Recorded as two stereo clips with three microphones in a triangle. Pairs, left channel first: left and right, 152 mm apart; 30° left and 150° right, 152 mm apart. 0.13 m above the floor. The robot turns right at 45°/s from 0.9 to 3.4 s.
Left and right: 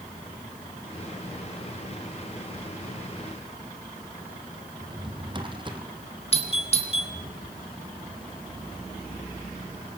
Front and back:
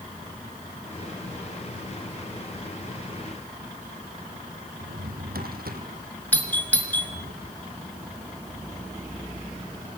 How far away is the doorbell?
About 1.9 m.